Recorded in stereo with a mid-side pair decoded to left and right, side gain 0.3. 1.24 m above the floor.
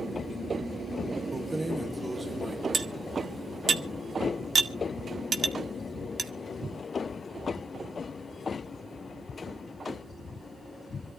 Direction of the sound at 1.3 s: 30° right.